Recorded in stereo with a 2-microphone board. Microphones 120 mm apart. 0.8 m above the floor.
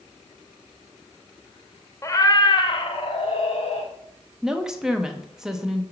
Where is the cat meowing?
25° left (ahead or behind), 0.6 m; by 3.9 s 65° left (ahead or behind), 1.3 m.